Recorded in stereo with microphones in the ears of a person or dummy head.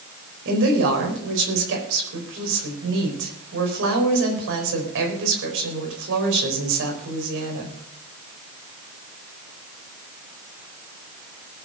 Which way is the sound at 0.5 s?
65° right (ahead or behind).